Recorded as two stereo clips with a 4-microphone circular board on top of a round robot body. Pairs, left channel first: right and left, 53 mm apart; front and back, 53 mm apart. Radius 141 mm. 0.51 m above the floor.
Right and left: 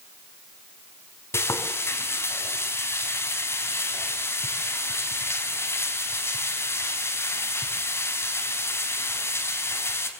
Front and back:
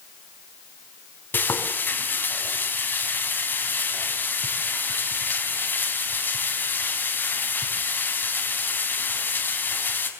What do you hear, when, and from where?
1.3 s frying: 55° right, 4.5 m